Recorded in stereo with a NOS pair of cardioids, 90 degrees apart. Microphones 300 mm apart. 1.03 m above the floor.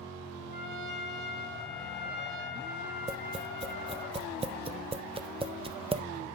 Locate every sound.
0.5 s a trumpet: 35° left, 3 m
3.1 s tapping: 20° right, 0.7 m